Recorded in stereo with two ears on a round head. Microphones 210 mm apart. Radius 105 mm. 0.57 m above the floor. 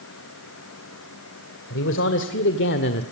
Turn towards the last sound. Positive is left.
turn(degrees=45)  # may be behind; listen again after turning